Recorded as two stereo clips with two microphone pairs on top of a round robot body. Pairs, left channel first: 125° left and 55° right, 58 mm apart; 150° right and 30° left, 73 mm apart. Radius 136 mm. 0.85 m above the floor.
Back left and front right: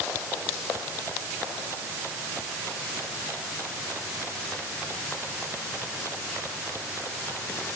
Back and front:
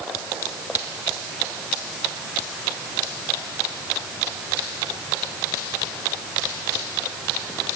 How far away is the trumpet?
I don't hear a trumpet.